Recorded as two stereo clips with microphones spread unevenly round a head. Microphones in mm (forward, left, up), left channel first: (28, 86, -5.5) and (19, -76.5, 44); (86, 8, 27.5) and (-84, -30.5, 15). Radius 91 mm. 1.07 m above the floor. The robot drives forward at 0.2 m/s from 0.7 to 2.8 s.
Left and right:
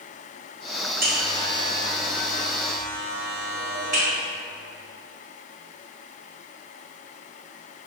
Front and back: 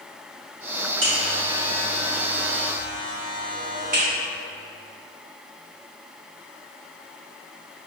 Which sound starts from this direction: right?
A buzzer, at 1.0 s.